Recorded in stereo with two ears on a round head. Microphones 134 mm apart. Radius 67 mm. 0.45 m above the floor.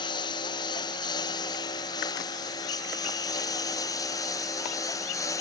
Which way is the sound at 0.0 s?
30° left (ahead or behind).